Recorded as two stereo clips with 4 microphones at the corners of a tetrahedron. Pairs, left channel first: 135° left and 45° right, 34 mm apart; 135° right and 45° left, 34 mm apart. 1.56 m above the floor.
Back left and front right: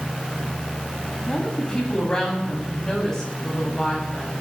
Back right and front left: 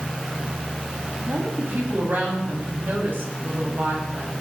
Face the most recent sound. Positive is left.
turn(degrees=55)